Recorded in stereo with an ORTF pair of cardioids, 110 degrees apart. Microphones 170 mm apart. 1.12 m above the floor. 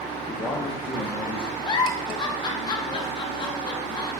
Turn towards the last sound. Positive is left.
turn(degrees=25)